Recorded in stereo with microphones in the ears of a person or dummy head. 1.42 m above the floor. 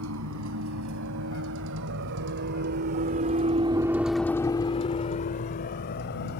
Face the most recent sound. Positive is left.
turn(degrees=55)  # may be behind; listen again after turning